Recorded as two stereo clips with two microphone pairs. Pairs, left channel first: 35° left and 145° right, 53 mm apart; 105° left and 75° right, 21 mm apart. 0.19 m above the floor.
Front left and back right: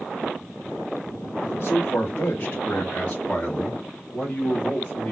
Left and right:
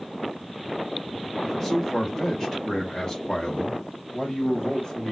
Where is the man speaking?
35° left, 1.9 m; by 5.1 s 125° left, 2 m.